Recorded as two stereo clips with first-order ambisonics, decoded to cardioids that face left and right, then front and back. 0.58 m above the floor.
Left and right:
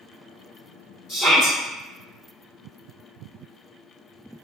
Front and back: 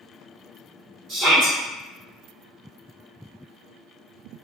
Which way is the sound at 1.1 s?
155° left.